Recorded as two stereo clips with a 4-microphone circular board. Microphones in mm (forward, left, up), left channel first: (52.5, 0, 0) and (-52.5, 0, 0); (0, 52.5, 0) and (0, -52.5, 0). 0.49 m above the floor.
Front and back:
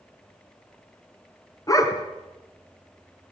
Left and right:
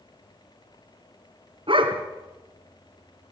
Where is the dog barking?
55° right, 3 m.